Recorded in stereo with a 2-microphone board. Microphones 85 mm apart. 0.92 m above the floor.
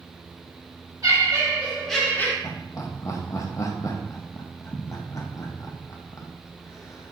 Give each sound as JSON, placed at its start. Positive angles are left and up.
{"t": 1.0, "sound": "laughter", "side_deg": -45, "distance_m": 1.2}
{"t": 2.4, "sound": "laughter", "side_deg": 40, "distance_m": 0.6}